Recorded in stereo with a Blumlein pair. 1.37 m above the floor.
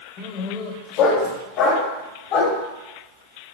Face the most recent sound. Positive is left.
turn(degrees=40)